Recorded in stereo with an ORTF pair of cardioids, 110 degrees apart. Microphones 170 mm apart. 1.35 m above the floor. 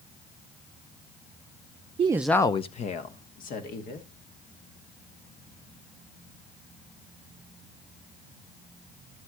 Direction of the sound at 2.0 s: 40° right.